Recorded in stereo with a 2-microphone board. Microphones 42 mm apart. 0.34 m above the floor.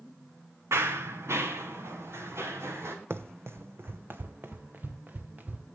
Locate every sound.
0.7 s running footsteps: 75° right (ahead or behind), 1.3 m
3.1 s running footsteps: 65° right (ahead or behind), 0.7 m; by 5.7 s 35° right (ahead or behind), 1.8 m